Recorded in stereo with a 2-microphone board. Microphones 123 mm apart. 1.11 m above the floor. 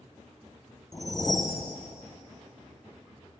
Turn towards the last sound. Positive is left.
turn(degrees=30)  # may be behind; listen again after turning